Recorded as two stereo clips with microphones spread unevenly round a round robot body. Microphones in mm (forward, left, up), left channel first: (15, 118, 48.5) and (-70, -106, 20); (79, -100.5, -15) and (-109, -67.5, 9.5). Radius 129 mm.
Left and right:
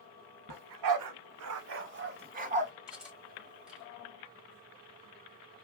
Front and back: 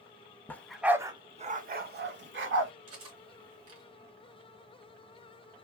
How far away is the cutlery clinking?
About 1.5 m.